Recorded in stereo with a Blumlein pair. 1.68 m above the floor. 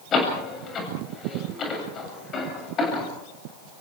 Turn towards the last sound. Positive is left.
turn(degrees=25)